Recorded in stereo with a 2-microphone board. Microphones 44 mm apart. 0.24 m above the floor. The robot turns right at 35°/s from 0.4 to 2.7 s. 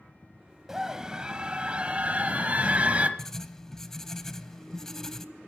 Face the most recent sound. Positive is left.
turn(degrees=10)  # may be behind; listen again after turning